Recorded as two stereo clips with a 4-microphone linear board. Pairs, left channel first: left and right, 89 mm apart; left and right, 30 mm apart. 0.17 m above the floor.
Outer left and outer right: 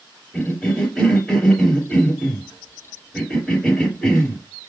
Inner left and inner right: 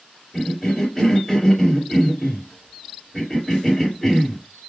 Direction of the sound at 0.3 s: Centre (ahead or behind).